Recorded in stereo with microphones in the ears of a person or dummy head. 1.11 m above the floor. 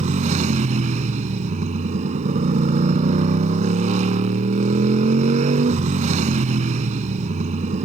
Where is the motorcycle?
35° right (ahead or behind).